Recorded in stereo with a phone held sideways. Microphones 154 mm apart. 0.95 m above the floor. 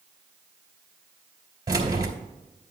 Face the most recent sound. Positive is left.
turn(degrees=-25)  # may be behind; listen again after turning